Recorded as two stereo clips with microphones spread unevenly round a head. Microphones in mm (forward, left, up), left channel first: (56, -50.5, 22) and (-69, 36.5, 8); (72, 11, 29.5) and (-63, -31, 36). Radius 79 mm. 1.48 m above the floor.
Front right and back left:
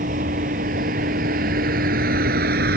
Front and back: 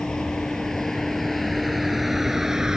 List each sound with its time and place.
0.0 s a vehicle: 105° left; by 2.8 s 110° left